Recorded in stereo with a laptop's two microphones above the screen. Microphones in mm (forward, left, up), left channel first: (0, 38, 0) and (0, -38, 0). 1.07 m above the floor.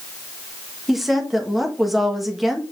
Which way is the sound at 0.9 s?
5° right (ahead or behind).